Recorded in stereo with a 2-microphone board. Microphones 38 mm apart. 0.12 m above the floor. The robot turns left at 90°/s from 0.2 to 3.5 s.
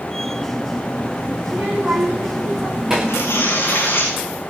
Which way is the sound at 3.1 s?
95° left.